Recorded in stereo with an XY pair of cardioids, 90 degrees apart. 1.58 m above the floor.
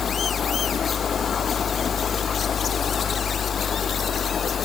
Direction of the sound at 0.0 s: 60° left.